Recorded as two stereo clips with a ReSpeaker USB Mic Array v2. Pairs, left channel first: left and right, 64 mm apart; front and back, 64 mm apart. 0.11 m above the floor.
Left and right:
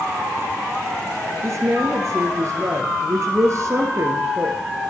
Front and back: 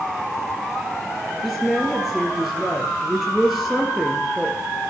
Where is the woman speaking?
95° right, 1.7 m.